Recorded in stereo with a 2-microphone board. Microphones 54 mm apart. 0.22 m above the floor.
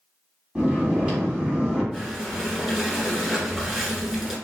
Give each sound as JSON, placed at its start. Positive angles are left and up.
{"t": 0.6, "sound": "snoring", "side_deg": -20, "distance_m": 1.8}
{"t": 1.9, "sound": "breathing", "side_deg": -5, "distance_m": 1.3}